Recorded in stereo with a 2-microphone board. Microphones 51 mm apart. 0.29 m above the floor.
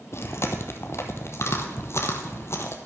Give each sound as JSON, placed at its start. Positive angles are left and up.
{"t": 0.1, "sound": "chewing", "side_deg": 65, "distance_m": 1.7}